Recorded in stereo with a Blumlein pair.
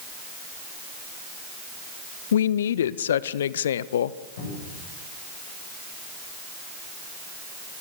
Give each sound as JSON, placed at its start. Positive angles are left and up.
{"t": 2.3, "sound": "a woman speaking", "azimuth_deg": 60, "distance_m": 0.7}
{"t": 4.4, "sound": "a cupboard door", "azimuth_deg": 60, "distance_m": 8.5}